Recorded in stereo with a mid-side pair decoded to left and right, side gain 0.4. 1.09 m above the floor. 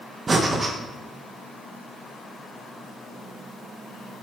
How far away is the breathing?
About 1.1 m.